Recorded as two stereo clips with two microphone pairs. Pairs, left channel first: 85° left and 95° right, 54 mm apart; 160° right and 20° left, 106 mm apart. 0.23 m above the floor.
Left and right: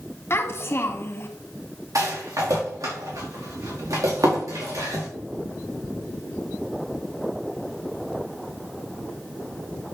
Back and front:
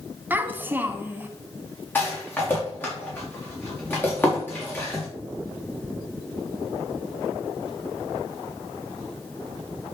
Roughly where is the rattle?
Right.